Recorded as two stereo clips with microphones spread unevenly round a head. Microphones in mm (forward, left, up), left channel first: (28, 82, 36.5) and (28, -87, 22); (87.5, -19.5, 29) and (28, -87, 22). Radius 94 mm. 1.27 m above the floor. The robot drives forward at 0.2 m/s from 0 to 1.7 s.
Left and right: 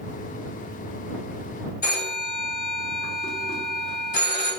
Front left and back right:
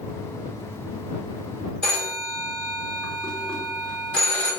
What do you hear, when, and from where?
1.8 s a phone ringing: 135° left, 0.8 m